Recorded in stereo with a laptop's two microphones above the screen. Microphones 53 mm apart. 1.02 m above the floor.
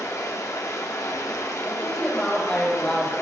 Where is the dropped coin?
No dropped coin in this recording.